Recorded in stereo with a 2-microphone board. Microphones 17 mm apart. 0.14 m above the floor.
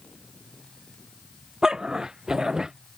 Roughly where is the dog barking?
Right.